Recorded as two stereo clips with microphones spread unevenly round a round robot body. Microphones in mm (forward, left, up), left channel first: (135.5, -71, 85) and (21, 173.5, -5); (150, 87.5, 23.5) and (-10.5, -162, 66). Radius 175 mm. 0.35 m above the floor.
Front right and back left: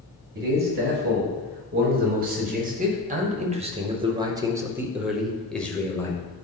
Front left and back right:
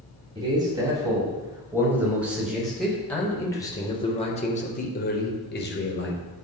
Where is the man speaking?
160° left, 2.5 m; by 6.2 s 30° left, 1.6 m.